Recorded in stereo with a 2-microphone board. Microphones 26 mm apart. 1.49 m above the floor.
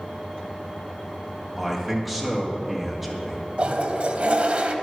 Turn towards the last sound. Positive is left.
turn(degrees=-55)  # may be behind; listen again after turning